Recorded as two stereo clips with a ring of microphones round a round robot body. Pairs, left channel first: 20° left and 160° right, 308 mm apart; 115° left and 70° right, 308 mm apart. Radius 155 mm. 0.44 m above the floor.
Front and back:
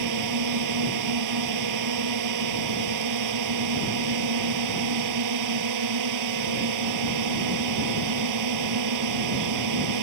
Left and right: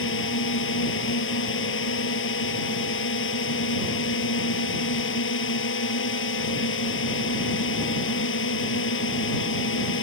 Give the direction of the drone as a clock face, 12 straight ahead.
6 o'clock.